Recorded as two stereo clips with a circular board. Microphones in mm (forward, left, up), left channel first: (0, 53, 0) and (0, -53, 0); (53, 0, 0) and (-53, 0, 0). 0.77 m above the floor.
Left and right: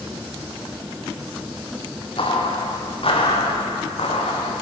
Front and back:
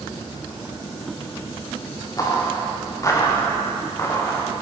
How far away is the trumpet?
No trumpet in this recording.